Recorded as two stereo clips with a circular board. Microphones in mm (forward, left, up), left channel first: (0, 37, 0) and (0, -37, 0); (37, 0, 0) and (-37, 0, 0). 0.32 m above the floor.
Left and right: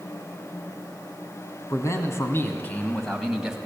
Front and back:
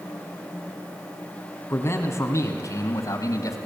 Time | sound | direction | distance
1.7 | a man speaking | 50° left | 3.5 m